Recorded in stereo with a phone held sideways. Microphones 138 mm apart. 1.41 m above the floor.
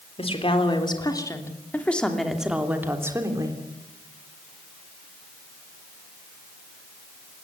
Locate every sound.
0.2 s a woman speaking: 45° left (ahead or behind), 3.5 m; by 3.6 s 30° right (ahead or behind), 3.5 m